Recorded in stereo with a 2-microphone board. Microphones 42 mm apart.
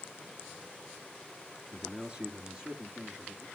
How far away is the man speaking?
About 1.7 m.